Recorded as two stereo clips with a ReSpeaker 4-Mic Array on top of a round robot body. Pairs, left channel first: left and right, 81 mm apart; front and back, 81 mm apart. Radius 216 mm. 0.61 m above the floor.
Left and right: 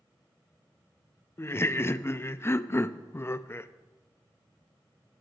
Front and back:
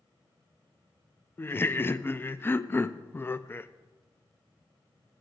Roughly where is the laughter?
Ahead left.